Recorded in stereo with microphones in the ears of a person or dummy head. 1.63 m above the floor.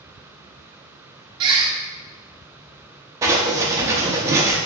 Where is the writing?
20° right (ahead or behind), 0.6 m.